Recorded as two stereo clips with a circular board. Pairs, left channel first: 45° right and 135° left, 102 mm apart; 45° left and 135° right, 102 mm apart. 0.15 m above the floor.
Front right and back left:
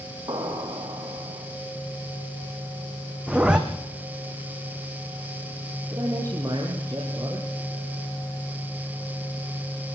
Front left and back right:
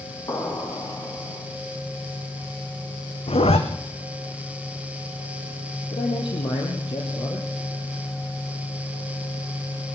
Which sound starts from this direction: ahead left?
A zipper, at 3.3 s.